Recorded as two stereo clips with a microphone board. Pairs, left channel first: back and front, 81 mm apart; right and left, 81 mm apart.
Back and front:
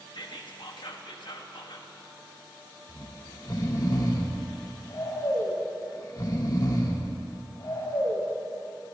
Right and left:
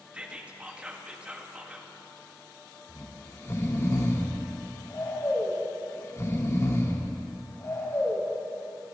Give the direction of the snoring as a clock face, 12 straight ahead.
5 o'clock.